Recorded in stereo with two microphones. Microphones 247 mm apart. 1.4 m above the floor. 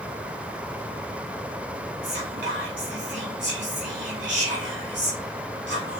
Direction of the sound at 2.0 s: 50° right (ahead or behind).